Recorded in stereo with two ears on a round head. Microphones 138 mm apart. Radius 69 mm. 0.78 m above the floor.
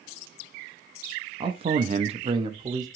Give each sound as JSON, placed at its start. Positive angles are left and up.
{"t": 1.4, "sound": "a man speaking", "side_deg": -30, "distance_m": 0.6}